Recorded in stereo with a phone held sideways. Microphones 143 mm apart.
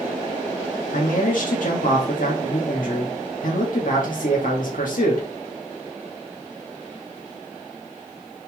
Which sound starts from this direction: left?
A man speaking, at 0.9 s.